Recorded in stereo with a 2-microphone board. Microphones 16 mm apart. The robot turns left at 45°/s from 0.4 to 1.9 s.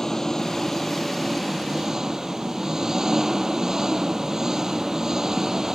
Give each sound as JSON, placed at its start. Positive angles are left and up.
{"t": 0.0, "sound": "an engine running", "azimuth_deg": 30}